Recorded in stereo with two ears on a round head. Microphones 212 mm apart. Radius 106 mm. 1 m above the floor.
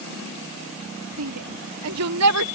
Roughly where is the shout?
Right.